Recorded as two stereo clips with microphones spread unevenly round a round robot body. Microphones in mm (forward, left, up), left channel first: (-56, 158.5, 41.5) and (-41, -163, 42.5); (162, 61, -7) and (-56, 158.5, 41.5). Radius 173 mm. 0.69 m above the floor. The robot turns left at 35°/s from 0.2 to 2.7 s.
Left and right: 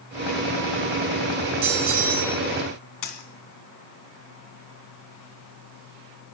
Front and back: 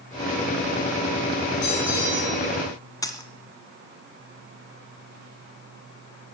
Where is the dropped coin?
55° left, 2 m.